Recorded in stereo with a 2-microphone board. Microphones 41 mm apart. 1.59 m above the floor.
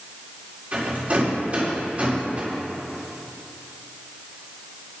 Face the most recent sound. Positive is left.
turn(degrees=-35)  # may be behind; listen again after turning